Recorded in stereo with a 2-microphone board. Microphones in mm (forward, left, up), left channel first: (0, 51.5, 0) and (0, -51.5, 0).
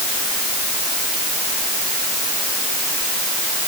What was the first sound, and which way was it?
Only background noise.